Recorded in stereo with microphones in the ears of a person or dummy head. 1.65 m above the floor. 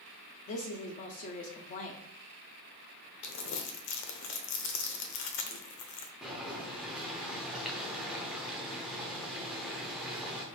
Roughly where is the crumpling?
Left.